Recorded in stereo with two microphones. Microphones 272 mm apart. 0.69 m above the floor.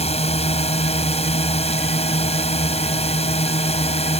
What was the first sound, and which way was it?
A drone, 25° left (ahead or behind).